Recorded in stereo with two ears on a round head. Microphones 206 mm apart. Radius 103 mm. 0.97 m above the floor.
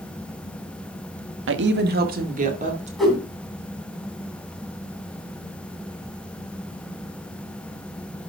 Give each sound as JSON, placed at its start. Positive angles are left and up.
{"t": 1.5, "sound": "a woman speaking", "side_deg": -55, "distance_m": 1.4}
{"t": 3.0, "sound": "a whoosh", "side_deg": 0, "distance_m": 3.0}